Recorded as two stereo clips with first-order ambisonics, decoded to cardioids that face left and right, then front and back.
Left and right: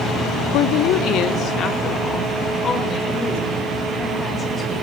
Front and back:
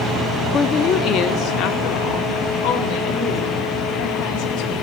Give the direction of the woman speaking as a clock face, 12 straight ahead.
10 o'clock.